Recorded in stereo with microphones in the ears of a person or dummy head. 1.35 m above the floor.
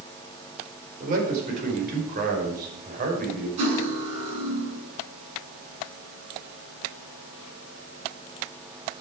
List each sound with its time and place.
1.0 s a man speaking: 45° right (ahead or behind), 5 m
3.6 s cutlery clinking: 40° right (ahead or behind), 8 m